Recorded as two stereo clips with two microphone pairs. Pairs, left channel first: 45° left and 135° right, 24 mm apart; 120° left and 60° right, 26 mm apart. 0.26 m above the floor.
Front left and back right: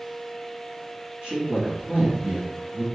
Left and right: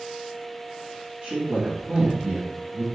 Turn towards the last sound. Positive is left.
turn(degrees=-85)